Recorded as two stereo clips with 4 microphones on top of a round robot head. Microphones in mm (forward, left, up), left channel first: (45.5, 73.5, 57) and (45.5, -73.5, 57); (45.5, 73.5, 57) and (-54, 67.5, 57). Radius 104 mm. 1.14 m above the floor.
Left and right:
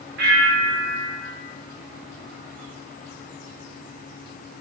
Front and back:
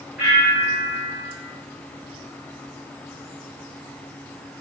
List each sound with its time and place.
0.2 s a bell: 95° right, 1.1 m